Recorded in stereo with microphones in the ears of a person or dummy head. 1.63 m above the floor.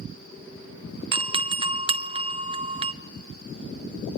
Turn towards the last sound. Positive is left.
turn(degrees=-25)  # may be behind; listen again after turning